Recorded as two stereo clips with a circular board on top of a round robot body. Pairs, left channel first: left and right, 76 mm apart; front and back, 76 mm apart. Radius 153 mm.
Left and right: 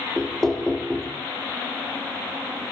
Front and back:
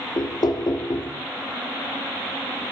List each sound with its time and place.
0.2 s knocking: 5° left, 0.9 m